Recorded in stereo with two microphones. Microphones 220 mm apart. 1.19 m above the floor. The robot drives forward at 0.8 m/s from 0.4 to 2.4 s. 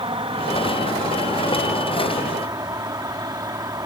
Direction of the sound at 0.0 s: 25° right (ahead or behind).